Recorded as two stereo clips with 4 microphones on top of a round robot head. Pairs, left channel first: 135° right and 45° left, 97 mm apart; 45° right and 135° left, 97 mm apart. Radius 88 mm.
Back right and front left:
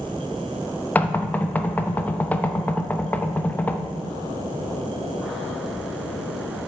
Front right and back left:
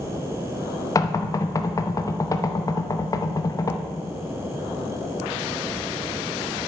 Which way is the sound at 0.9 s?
70° right.